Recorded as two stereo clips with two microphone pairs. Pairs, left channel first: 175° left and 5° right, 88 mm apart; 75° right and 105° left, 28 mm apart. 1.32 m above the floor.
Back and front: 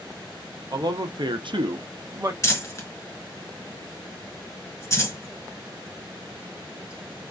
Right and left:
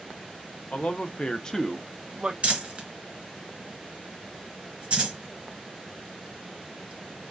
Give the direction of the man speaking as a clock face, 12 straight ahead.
1 o'clock.